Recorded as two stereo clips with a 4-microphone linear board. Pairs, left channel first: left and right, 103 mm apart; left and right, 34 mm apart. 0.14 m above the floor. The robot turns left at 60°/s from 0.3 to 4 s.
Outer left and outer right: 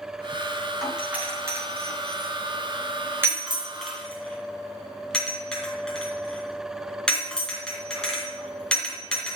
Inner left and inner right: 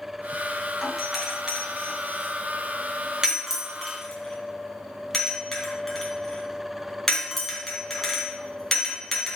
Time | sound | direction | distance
0.8 | a doorbell | centre (ahead or behind) | 2.5 m